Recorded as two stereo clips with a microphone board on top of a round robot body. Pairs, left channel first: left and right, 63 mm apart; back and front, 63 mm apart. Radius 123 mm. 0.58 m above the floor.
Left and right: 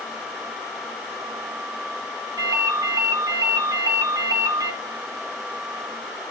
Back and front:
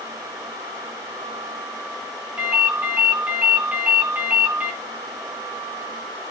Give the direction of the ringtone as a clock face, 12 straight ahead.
2 o'clock.